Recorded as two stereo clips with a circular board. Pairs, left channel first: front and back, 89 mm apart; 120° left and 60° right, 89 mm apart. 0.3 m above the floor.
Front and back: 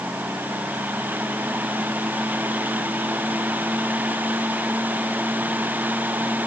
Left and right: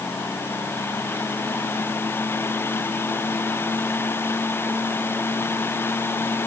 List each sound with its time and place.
Only background noise.